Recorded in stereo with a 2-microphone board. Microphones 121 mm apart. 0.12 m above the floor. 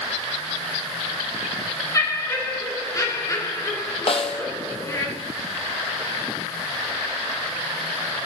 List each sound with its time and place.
1.9 s laughter: 25° left (ahead or behind), 1.5 m
4.1 s a snare drum: 55° left (ahead or behind), 1.1 m